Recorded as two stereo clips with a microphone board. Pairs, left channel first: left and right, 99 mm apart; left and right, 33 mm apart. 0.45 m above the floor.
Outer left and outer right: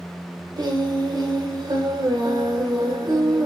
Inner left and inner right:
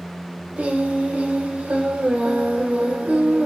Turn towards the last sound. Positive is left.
turn(degrees=-45)  # may be behind; listen again after turning